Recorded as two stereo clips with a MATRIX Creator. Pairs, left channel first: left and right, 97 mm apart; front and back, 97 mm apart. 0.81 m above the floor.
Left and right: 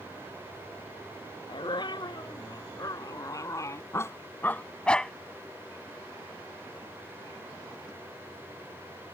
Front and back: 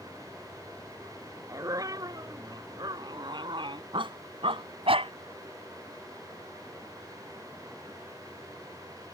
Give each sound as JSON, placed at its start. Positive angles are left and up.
{"t": 1.5, "sound": "a dog barking", "azimuth_deg": 130}